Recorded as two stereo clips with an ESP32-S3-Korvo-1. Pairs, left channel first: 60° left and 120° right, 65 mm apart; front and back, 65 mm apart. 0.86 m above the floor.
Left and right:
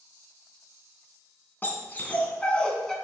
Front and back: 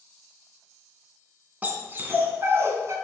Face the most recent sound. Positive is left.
turn(degrees=145)